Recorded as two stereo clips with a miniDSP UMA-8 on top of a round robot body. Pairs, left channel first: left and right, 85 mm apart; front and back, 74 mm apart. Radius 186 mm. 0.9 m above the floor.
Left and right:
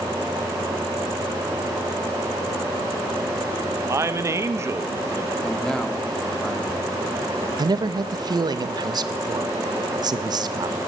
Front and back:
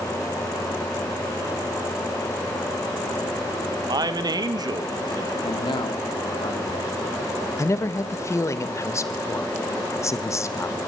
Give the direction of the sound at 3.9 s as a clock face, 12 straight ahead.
5 o'clock.